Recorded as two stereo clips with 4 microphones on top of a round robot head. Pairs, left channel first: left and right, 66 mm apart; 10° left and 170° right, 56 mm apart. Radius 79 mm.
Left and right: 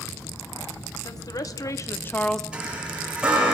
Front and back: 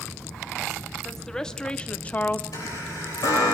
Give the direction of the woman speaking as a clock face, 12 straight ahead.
9 o'clock.